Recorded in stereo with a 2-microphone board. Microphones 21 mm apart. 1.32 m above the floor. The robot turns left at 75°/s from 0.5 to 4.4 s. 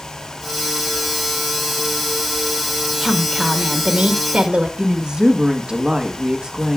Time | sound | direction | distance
3.0 | a woman speaking | 25° left | 1.4 m
4.8 | a woman speaking | 35° right (ahead or behind) | 1.3 m